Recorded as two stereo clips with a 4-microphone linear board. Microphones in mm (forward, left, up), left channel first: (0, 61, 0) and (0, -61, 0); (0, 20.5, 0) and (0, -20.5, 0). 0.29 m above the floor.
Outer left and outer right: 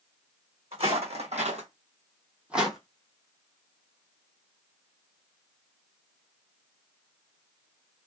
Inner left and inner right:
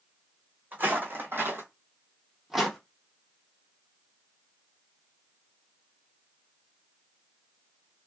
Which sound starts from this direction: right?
Footsteps, at 0.7 s.